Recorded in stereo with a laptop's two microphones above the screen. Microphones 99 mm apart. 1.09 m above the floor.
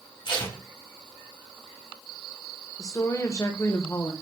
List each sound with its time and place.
0.2 s tape being pulled: 50° left (ahead or behind), 1.4 m
2.8 s a woman speaking: 30° left (ahead or behind), 0.8 m